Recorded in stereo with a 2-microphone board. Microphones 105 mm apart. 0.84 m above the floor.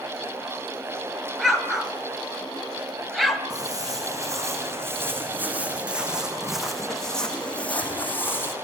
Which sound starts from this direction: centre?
An explosion, at 1.4 s.